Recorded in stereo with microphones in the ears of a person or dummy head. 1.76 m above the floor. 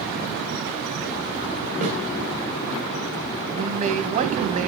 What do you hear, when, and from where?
1.8 s a snare drum: 40° right (ahead or behind), 3.5 m
3.5 s a man speaking: 40° right (ahead or behind), 1.4 m